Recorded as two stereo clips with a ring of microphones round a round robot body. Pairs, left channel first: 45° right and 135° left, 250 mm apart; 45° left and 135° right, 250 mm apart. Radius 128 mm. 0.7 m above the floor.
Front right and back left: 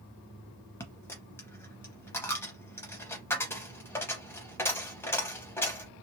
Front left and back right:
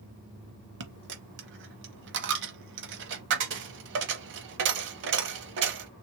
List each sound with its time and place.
0.8 s a dropped coin: 120° right, 0.6 m